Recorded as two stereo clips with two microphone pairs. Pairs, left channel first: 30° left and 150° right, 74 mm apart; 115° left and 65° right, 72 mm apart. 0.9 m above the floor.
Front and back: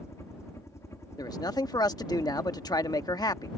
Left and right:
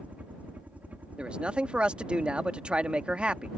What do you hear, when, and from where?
0.0 s a helicopter: straight ahead
1.2 s a man speaking: 10° left